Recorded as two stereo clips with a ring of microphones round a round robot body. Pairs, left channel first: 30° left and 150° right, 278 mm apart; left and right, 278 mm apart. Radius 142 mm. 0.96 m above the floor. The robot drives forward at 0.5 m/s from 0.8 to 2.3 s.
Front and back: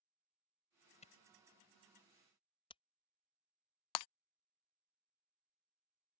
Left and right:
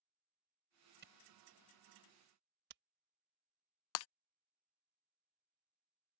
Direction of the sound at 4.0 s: 50° left.